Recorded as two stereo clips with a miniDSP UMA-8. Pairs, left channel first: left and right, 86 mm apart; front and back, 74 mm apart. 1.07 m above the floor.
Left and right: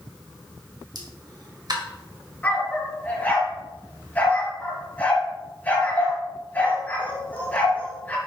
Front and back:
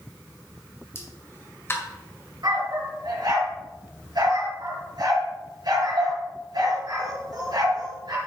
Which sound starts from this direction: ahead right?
A pop, at 0.9 s.